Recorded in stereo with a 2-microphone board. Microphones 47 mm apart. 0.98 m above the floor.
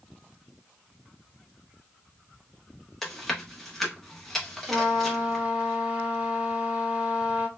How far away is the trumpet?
About 1.2 m.